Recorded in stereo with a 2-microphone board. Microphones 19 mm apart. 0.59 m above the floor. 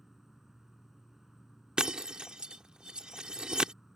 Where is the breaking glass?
60° right (ahead or behind).